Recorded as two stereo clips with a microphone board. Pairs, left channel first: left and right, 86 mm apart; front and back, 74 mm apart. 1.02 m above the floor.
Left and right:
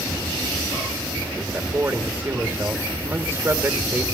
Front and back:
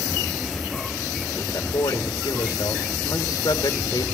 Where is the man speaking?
25° right, 1.5 m.